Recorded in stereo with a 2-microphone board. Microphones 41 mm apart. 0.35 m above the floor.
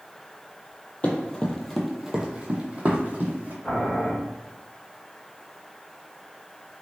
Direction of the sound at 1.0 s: 35° left (ahead or behind).